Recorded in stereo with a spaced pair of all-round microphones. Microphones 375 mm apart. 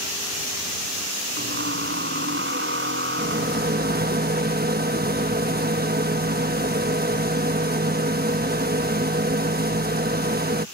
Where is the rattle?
25° right (ahead or behind).